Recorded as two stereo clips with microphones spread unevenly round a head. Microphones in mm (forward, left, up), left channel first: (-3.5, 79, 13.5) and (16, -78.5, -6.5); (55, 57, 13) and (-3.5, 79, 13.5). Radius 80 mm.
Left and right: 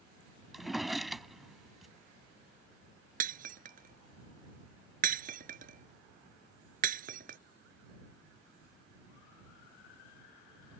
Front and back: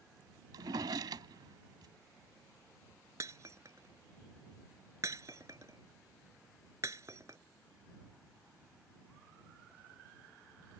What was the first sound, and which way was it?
A drawer, 175° right.